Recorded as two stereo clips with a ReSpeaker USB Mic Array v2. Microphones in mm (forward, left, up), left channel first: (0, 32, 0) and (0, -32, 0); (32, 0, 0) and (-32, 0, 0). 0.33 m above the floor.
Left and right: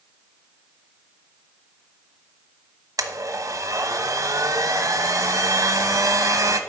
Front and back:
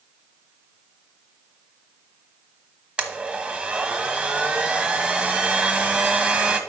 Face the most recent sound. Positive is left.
turn(degrees=-110)